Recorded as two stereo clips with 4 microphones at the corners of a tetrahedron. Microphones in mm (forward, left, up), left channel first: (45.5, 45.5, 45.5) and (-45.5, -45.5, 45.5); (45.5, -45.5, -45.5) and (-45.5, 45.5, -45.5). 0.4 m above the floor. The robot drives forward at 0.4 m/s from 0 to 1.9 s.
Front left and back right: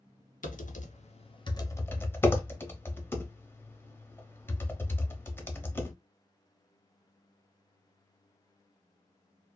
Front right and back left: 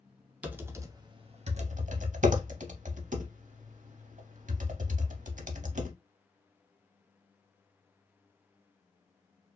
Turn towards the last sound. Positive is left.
turn(degrees=120)